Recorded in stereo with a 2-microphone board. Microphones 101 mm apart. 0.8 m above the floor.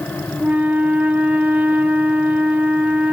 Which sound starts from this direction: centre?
A flute, at 0.4 s.